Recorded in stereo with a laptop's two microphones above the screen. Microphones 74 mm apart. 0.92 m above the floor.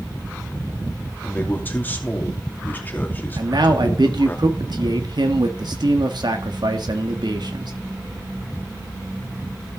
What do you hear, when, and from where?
1.2 s a man speaking: 25° left (ahead or behind), 2.5 m
3.4 s a man speaking: 70° right (ahead or behind), 1.5 m